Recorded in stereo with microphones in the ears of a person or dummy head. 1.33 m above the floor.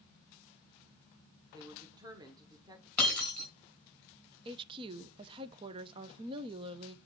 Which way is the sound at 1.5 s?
20° right (ahead or behind).